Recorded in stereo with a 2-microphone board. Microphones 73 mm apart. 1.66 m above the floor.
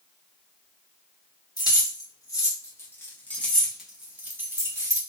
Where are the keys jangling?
60° left (ahead or behind), 1.6 m; by 5.0 s 45° right (ahead or behind), 1.1 m.